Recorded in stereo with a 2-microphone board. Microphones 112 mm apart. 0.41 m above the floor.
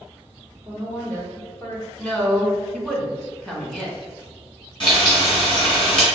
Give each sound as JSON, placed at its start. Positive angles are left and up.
{"t": 0.7, "sound": "a woman speaking", "side_deg": 20, "distance_m": 1.4}
{"t": 2.0, "sound": "a woman speaking", "side_deg": 5, "distance_m": 1.1}
{"t": 4.8, "sound": "frying", "side_deg": 45, "distance_m": 1.9}